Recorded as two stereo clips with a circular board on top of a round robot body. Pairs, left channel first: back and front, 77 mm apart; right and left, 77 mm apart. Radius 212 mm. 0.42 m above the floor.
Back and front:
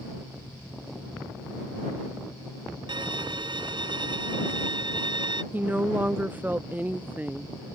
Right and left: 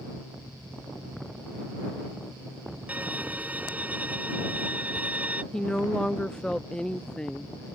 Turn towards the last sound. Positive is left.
turn(degrees=-20)